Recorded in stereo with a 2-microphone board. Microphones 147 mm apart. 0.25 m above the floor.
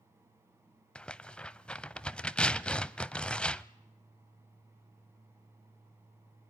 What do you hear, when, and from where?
0.9 s tearing paper: 5° left (ahead or behind), 0.6 m